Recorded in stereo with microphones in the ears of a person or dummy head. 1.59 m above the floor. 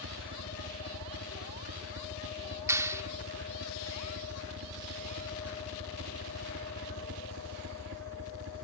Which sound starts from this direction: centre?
A clap, at 2.7 s.